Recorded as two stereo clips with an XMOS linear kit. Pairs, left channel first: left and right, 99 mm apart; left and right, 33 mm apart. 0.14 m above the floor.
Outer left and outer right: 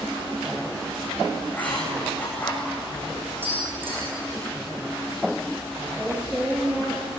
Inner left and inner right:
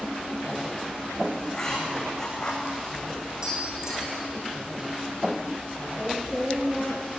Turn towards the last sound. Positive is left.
turn(degrees=-10)  # may be behind; listen again after turning